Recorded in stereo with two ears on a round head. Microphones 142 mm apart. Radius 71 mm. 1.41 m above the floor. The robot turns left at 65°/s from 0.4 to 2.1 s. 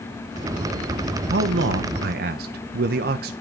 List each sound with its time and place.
1.3 s a man speaking: 65° right, 0.6 m; by 3.3 s 115° right, 0.6 m